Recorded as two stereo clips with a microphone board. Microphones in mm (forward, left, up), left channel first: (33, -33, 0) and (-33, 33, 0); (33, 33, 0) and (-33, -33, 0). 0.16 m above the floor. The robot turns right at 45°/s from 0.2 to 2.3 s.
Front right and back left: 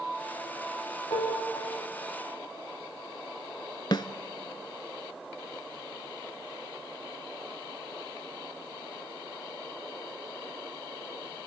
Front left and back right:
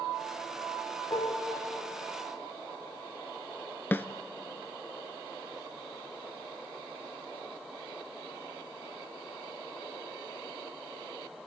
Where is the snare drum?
20° right, 0.6 m.